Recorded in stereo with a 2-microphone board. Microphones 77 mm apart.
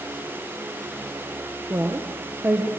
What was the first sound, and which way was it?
A woman speaking, 30° right (ahead or behind).